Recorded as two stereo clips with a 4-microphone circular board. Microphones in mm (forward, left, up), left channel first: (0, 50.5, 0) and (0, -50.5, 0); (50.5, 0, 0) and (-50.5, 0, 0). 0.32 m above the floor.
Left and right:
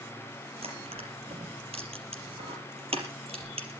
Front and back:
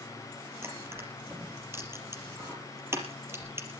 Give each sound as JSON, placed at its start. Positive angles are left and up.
{"t": 0.6, "sound": "crushing", "azimuth_deg": -115, "distance_m": 4.5}